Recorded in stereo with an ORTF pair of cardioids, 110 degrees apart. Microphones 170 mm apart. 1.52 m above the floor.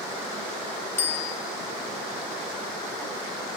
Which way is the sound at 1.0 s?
15° left.